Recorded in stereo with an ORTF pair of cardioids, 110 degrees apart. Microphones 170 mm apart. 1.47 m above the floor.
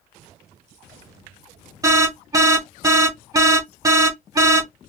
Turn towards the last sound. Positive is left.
turn(degrees=-20)